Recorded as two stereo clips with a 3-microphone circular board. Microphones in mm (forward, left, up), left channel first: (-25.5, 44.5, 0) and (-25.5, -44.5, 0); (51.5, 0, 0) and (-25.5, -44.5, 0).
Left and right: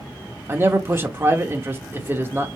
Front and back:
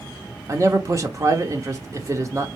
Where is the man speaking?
135° right, 0.8 m.